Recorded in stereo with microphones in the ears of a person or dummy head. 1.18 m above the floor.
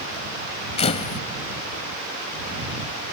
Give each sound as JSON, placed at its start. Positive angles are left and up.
{"t": 0.8, "sound": "a camera shutter", "side_deg": 40}